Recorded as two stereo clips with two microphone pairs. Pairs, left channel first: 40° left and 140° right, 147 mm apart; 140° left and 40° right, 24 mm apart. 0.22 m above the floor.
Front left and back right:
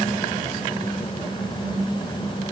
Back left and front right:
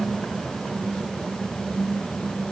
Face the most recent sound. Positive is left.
No sound to turn to.